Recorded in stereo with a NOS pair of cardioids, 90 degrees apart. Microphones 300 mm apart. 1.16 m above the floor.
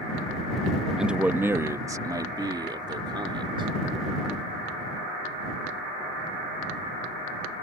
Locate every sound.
1.0 s a man speaking: straight ahead; by 3.7 s 15° right